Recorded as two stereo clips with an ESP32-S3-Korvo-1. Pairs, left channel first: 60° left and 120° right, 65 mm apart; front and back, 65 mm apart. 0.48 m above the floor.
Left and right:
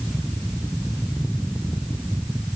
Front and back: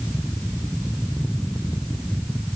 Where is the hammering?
I don't hear hammering.